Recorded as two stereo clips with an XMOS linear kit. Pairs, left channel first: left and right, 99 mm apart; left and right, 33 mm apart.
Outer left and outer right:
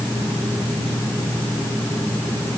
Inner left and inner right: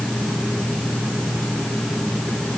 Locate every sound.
Only background noise.